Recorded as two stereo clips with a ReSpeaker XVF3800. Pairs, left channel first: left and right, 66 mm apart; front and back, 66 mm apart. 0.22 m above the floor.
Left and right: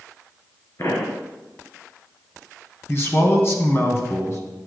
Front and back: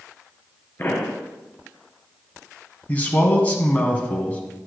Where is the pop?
55° left, 1.6 m.